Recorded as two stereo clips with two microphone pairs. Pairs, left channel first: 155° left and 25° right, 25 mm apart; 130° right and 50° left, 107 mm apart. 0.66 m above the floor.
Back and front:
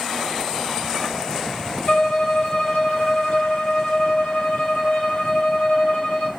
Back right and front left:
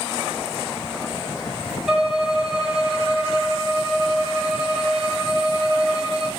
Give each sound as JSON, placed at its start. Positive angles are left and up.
{"t": 1.9, "sound": "a violin", "azimuth_deg": 130, "distance_m": 4.5}